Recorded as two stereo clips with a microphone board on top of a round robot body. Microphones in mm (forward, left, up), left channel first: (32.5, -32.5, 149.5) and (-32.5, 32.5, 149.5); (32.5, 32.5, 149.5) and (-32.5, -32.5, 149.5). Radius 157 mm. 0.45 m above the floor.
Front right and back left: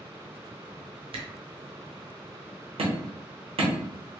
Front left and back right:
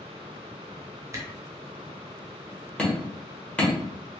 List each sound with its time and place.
1.1 s a camera shutter: 160° left, 0.8 m
2.8 s hammering: 125° left, 1.3 m